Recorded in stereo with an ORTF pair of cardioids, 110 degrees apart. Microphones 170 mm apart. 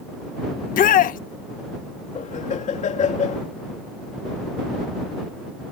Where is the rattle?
No rattle in this recording.